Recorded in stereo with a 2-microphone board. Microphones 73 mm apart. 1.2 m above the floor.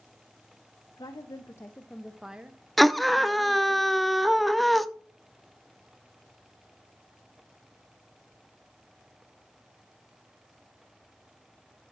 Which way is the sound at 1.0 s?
65° left (ahead or behind).